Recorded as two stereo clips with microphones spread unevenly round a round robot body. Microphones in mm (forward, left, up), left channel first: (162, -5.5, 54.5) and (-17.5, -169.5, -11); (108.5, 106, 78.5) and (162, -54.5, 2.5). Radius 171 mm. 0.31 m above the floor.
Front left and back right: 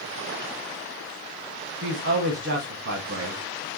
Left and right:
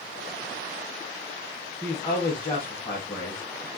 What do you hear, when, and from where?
1.8 s a woman speaking: 165° right, 2 m